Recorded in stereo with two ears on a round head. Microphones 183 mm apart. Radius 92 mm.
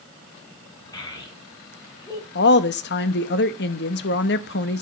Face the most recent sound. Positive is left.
turn(degrees=55)  # may be behind; listen again after turning